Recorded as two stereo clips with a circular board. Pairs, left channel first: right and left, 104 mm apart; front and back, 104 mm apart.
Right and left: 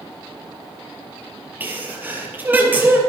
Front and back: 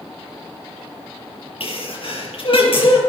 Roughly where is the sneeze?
Ahead.